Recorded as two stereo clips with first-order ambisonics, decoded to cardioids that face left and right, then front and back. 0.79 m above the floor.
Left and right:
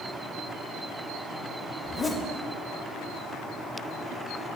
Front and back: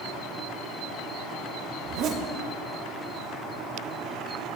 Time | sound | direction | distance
1.8 | a zipper | 170° left | 0.6 m